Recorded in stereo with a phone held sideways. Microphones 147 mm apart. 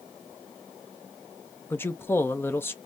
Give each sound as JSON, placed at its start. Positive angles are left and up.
{"t": 1.7, "sound": "a man speaking", "side_deg": 15, "distance_m": 0.6}